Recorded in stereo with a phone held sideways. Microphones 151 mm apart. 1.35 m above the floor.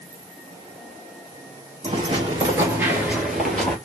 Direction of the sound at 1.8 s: 35° right (ahead or behind).